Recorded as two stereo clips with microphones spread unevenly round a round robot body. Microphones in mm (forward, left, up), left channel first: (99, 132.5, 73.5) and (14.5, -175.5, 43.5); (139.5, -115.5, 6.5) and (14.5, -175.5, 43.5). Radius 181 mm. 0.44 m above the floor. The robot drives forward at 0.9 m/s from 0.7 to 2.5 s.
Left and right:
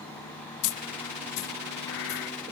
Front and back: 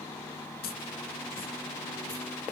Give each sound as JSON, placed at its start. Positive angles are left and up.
{"t": 0.6, "sound": "a dropped coin", "azimuth_deg": 65, "distance_m": 0.7}